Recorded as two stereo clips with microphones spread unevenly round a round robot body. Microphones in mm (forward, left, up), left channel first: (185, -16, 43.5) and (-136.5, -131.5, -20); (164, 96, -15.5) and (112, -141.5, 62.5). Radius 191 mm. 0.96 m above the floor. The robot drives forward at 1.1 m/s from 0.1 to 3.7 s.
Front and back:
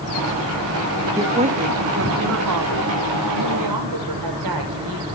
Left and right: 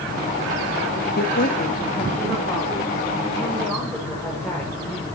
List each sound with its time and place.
1.2 s a woman speaking: 120° left, 1.3 m; by 5.0 s 165° left, 3.5 m